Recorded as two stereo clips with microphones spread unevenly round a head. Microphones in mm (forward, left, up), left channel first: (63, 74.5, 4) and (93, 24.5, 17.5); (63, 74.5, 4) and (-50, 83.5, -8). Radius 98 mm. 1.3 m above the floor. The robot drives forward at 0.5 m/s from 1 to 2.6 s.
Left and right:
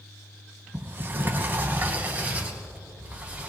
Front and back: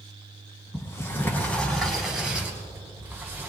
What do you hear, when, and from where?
0.7 s a sliding door: 65° right, 1.6 m; by 3.5 s 105° right, 1.5 m